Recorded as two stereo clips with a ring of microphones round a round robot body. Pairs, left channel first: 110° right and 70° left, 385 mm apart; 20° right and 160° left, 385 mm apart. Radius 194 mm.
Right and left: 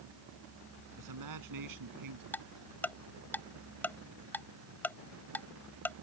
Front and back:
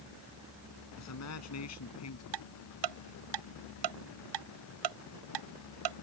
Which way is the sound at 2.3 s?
165° left.